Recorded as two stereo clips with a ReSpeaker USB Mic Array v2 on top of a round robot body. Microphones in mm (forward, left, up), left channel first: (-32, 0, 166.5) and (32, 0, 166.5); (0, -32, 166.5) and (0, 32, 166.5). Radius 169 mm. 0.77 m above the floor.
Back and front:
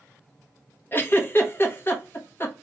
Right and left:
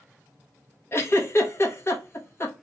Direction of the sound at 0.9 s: 130° right.